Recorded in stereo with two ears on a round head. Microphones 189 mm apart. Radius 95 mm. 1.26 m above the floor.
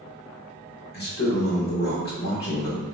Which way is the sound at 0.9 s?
50° left (ahead or behind).